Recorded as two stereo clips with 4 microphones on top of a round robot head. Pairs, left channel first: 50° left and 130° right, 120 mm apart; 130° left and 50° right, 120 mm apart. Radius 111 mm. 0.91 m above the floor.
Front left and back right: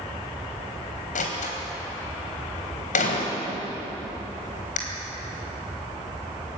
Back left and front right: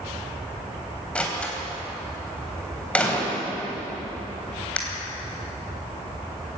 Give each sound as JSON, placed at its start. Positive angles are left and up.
{"t": 1.1, "sound": "a door slam", "azimuth_deg": 55, "distance_m": 3.5}